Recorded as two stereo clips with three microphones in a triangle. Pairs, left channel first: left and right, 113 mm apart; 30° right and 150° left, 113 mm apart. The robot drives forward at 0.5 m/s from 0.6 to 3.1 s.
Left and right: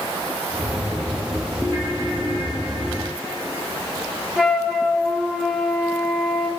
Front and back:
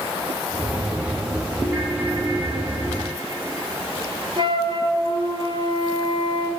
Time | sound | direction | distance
1.6 | a ringtone | 135° right | 6 m
4.4 | a flute | 170° right | 2.5 m